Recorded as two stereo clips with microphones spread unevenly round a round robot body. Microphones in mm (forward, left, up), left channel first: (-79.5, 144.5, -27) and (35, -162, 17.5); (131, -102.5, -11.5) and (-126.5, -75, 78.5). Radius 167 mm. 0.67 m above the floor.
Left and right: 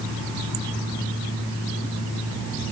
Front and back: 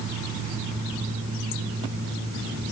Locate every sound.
Only background noise.